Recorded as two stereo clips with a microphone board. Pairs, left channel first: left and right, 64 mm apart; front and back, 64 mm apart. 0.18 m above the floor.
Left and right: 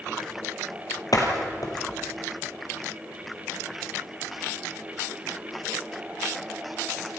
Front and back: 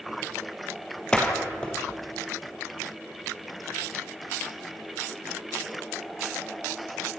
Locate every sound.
1.1 s a door slam: 75° left, 3.5 m